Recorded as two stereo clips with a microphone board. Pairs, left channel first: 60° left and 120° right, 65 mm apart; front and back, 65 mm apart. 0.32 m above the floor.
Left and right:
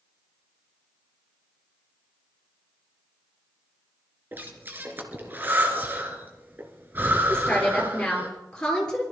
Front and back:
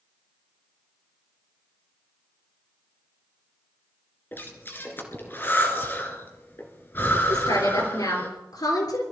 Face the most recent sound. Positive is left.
turn(degrees=-20)